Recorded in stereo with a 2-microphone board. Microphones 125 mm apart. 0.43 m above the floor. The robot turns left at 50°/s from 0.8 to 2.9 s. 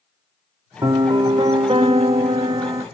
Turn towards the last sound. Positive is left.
turn(degrees=-145)